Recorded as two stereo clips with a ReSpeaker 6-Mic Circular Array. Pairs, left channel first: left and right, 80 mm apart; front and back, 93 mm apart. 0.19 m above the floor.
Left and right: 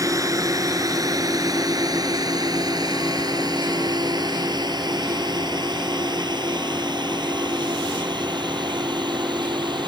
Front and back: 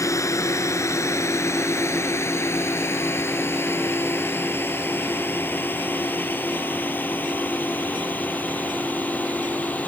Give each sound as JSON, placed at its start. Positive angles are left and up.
{"t": 0.0, "sound": "a drone", "azimuth_deg": -50}